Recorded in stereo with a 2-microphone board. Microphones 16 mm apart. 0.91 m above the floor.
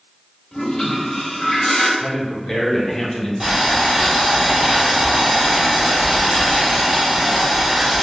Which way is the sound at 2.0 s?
30° left (ahead or behind).